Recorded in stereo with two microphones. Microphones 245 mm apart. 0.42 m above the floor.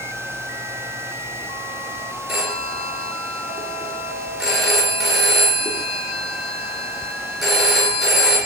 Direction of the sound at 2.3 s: Centre (ahead or behind).